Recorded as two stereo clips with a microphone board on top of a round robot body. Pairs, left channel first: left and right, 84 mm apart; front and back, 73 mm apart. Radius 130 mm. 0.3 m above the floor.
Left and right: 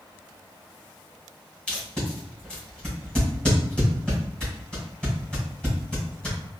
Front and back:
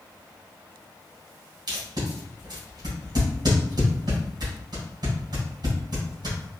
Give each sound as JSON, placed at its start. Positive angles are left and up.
{"t": 1.7, "sound": "tape being pulled", "azimuth_deg": 170, "distance_m": 1.9}